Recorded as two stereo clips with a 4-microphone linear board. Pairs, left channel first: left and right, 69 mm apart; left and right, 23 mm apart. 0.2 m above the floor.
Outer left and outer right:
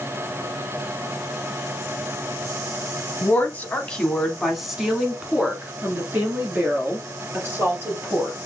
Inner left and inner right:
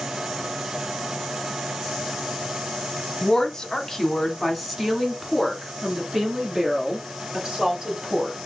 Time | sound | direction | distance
3.2 | a woman speaking | 30° left (ahead or behind) | 1.2 m